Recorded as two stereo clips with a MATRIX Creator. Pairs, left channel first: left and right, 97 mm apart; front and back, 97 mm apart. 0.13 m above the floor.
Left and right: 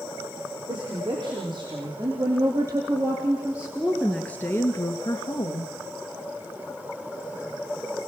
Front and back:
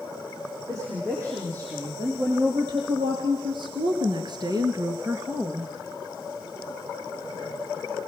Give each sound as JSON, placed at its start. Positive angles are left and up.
{"t": 0.7, "sound": "a woman speaking", "azimuth_deg": -125, "distance_m": 5.5}